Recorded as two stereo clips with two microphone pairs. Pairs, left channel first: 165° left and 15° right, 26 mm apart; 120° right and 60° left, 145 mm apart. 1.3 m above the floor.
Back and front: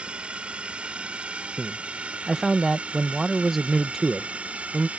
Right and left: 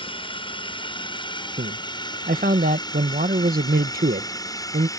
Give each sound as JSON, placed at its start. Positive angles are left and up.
{"t": 0.0, "sound": "a drone", "azimuth_deg": -65}
{"t": 1.6, "sound": "a man speaking", "azimuth_deg": 60}